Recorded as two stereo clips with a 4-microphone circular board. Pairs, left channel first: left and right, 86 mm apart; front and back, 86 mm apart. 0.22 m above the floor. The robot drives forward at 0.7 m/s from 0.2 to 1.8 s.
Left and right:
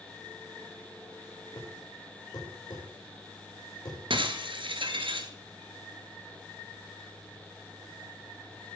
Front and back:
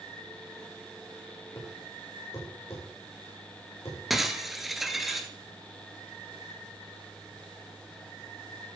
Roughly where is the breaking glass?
Right.